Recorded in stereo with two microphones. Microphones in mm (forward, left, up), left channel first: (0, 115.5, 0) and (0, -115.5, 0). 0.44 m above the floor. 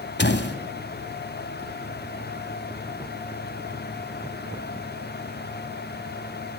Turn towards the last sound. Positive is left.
turn(degrees=50)  # may be behind; listen again after turning